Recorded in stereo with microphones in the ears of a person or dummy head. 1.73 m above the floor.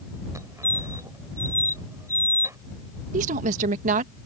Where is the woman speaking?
40° right (ahead or behind).